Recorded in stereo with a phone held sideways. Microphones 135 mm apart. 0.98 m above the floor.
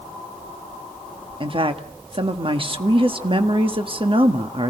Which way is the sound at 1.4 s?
40° right (ahead or behind).